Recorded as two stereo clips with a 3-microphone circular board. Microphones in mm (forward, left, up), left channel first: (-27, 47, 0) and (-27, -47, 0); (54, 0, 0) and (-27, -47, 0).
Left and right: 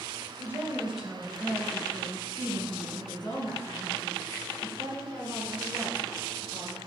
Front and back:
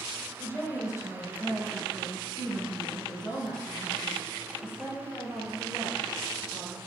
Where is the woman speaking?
35° right, 1.8 m; by 6.8 s 75° left, 7 m.